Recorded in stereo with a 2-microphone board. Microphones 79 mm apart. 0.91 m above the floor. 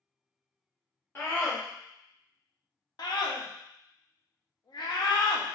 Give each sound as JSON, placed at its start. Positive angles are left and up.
{"t": 1.1, "sound": "a scream", "side_deg": 30, "distance_m": 1.8}
{"t": 3.0, "sound": "a scream", "side_deg": 60, "distance_m": 1.0}